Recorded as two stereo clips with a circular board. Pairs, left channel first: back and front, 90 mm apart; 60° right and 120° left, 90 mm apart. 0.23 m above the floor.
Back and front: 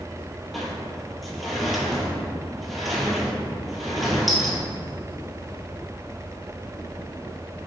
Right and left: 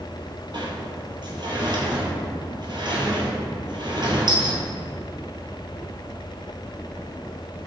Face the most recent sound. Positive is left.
turn(degrees=90)